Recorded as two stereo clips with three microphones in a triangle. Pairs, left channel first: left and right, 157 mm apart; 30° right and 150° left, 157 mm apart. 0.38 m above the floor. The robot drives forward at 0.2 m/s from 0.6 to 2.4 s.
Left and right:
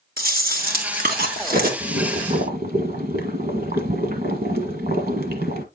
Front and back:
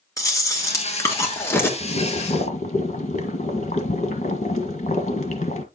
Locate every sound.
0.2 s chewing: 100° right, 2 m; by 1.7 s 105° right, 2 m
1.8 s boiling: 70° right, 1.6 m; by 5.7 s 75° right, 1.6 m